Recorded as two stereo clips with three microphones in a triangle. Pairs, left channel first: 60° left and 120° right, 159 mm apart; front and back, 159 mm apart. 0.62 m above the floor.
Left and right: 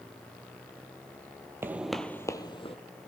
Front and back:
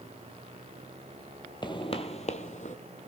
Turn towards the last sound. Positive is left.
turn(degrees=20)